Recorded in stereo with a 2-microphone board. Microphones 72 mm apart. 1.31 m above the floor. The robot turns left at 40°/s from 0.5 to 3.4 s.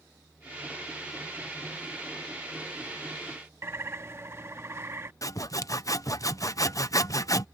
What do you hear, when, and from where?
3.6 s a bird: 35° right (ahead or behind)
5.2 s sawing: 50° left (ahead or behind)